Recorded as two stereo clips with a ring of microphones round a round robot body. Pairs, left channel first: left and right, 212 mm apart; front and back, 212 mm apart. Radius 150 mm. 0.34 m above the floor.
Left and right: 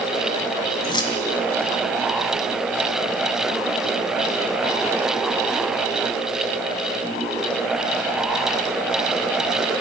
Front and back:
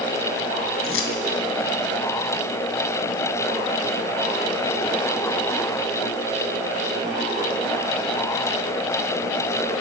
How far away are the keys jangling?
About 1.7 m.